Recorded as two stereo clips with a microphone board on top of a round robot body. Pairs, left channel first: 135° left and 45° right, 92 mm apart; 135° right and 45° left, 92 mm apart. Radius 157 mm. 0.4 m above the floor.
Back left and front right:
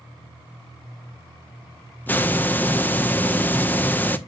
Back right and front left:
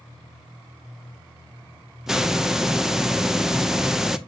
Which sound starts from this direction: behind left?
A hiss, at 2.1 s.